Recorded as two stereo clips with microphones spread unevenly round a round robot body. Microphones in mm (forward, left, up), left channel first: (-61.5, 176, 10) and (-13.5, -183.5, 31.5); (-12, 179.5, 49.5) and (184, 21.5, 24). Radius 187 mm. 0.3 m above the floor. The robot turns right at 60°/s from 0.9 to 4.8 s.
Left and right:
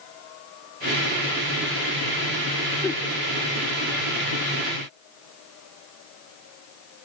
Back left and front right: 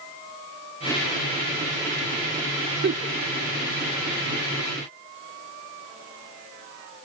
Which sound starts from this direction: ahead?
A giggle, at 2.8 s.